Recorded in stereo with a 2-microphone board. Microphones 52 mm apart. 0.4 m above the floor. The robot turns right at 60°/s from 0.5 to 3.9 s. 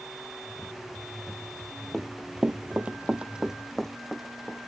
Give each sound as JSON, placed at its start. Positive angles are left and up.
{"t": 1.9, "sound": "running footsteps", "side_deg": -5}